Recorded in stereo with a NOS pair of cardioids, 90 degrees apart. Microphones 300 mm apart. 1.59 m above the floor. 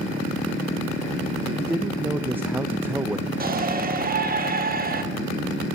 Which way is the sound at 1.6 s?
5° right.